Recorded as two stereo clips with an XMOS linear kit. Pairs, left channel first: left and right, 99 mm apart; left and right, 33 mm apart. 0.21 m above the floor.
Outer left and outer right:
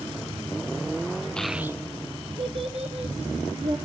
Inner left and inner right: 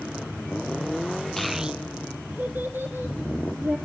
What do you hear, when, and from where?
1.4 s a child speaking: 10° left (ahead or behind), 0.9 m; by 3.8 s 80° right, 3 m